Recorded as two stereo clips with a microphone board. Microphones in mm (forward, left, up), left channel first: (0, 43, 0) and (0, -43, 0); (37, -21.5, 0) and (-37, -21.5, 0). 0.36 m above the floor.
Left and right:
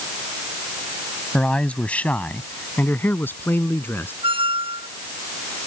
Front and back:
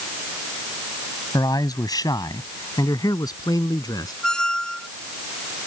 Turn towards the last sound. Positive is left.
turn(degrees=-80)